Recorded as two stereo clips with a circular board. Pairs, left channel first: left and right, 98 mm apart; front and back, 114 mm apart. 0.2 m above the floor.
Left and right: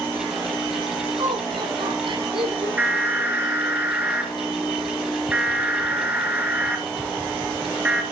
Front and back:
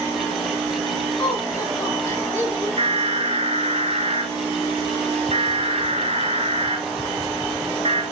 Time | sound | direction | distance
1.2 | laughter | 65° right | 2.5 m
2.8 | an alarm | 160° right | 3 m